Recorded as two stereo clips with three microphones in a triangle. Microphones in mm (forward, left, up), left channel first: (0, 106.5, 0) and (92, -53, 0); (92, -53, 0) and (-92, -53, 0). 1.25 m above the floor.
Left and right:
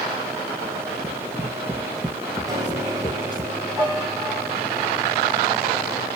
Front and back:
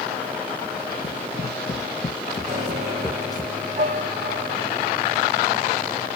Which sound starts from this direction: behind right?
A piano, at 2.5 s.